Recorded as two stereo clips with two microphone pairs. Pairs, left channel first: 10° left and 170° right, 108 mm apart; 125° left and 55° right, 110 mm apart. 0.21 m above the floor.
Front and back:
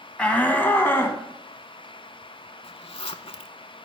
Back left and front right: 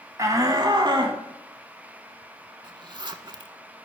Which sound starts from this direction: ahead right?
A shout, at 0.2 s.